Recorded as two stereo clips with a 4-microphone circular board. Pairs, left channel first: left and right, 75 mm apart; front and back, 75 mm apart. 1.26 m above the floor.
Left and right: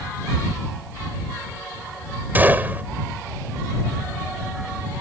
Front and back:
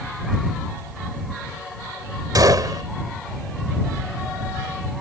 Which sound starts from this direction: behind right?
A gunshot, at 2.4 s.